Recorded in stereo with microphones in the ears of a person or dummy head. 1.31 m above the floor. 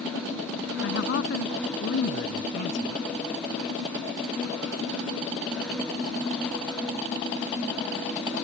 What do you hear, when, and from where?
0.8 s a man speaking: 65° left (ahead or behind)